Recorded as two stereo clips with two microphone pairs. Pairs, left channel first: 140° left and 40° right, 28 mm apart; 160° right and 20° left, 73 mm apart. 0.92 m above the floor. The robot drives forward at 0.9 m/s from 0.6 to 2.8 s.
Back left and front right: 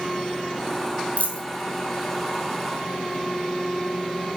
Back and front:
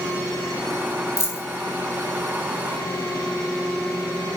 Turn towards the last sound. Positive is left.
turn(degrees=160)